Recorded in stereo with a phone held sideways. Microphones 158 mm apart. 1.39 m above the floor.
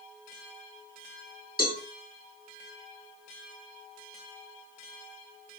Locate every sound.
1.6 s a cowbell: 70° left (ahead or behind), 5 m